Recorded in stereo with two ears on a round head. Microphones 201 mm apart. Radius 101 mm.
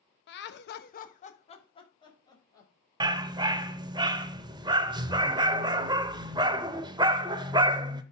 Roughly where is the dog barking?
Centre.